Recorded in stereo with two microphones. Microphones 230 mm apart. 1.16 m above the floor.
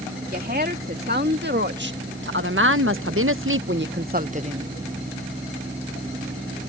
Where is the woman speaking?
45° right (ahead or behind); by 4.7 s 25° right (ahead or behind).